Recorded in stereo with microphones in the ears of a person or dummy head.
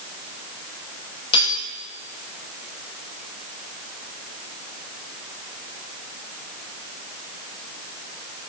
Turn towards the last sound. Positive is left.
turn(degrees=25)  # may be behind; listen again after turning